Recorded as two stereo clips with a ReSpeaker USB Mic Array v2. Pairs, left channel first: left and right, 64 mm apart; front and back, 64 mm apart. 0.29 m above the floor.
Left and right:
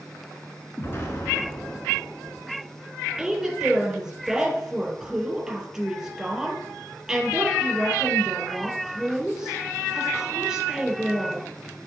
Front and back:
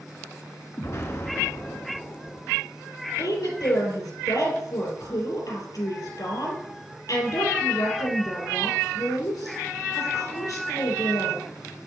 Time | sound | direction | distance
0.8 | an explosion | 40° left | 1.3 m
3.2 | a woman speaking | 5° right | 3 m